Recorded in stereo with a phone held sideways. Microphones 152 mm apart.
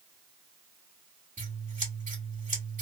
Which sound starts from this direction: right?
Scissors, at 1.4 s.